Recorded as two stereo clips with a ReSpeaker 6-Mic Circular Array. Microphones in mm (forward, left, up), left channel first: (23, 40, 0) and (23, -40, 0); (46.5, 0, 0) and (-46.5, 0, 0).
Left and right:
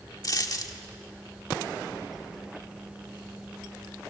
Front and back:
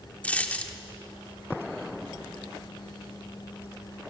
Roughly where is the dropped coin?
Left.